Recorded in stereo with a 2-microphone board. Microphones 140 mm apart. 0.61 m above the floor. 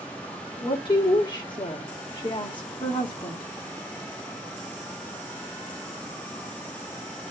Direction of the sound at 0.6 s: 30° left (ahead or behind).